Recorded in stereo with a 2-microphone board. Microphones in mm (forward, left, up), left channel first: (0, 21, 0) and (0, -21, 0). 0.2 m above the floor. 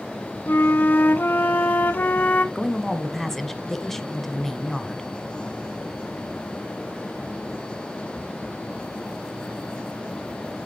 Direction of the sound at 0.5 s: 45° left (ahead or behind).